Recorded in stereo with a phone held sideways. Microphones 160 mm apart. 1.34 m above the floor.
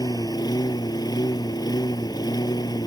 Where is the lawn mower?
25° left (ahead or behind).